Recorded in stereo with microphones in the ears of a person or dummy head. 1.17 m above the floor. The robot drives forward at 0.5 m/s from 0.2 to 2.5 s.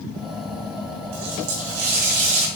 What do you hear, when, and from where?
1.1 s a running tap: 80° right, 4 m; by 2.5 s 85° right, 4 m